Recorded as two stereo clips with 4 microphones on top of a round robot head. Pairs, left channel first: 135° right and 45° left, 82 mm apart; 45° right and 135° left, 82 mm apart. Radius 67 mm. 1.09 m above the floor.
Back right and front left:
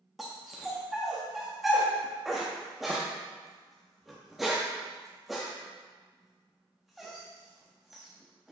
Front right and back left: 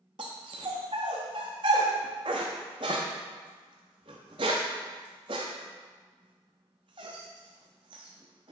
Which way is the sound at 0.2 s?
130° left.